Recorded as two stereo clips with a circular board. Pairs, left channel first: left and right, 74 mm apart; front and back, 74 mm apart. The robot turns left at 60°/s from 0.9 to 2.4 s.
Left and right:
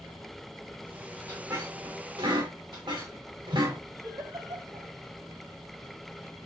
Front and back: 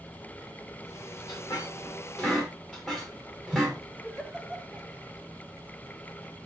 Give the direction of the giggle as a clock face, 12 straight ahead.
3 o'clock.